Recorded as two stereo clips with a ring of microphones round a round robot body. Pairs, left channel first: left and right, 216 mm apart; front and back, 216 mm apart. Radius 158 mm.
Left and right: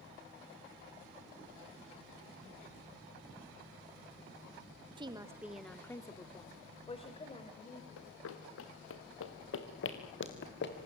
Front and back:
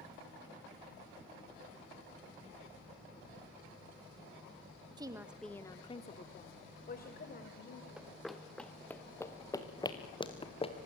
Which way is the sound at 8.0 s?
95° left.